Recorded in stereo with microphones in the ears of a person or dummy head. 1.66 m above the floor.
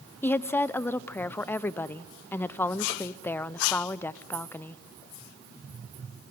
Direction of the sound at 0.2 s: 15° left (ahead or behind).